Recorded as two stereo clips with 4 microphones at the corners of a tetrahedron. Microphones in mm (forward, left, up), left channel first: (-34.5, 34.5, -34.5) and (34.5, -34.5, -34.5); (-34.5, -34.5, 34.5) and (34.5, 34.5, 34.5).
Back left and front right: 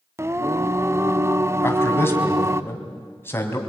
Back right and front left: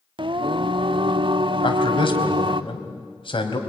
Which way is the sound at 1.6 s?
160° right.